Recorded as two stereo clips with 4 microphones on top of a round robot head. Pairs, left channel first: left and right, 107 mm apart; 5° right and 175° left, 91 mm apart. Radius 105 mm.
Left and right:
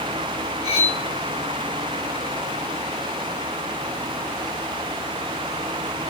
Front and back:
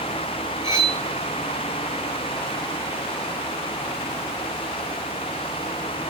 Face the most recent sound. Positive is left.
turn(degrees=120)